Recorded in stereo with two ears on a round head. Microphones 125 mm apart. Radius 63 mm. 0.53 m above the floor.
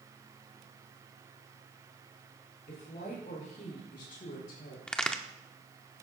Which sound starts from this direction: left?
A woman speaking, at 2.7 s.